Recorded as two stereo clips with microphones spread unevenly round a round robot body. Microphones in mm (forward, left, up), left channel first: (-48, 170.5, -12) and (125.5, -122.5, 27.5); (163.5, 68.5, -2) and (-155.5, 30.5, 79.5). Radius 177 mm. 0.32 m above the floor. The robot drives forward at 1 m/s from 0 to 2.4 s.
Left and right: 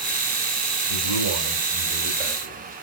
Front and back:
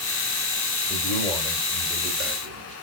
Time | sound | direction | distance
0.9 | a man speaking | 55° right | 1.9 m